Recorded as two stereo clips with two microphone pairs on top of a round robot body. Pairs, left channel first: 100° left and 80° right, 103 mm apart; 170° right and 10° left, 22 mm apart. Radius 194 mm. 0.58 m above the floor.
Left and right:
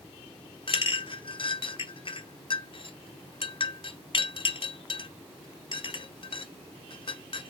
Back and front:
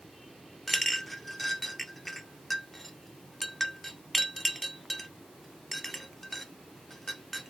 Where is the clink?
100° left, 0.7 m.